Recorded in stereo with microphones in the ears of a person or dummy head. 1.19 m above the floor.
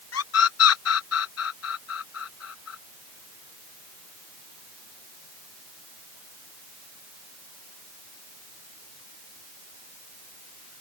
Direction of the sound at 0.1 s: 80° left.